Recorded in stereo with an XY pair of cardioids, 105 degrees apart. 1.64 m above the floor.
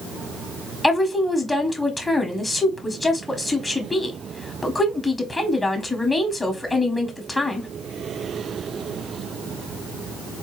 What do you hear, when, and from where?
0.8 s a woman speaking: 15° left, 1.1 m